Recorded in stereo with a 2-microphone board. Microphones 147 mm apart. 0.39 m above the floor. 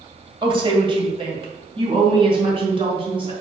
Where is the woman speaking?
30° right (ahead or behind), 2.0 m; by 3.3 s 35° right (ahead or behind), 3.5 m.